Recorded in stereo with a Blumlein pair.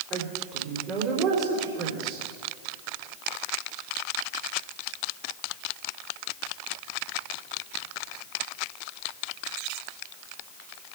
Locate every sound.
0.1 s a woman speaking: 35° right, 4 m